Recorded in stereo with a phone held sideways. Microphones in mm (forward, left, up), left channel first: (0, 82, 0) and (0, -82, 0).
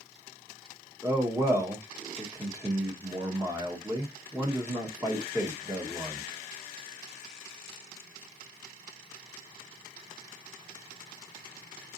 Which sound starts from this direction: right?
A man speaking, at 1.0 s.